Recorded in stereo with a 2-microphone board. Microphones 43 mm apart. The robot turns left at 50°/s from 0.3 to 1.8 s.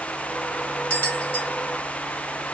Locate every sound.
0.9 s a bell: 50° left (ahead or behind), 1.8 m; by 1.5 s 70° left (ahead or behind), 1.8 m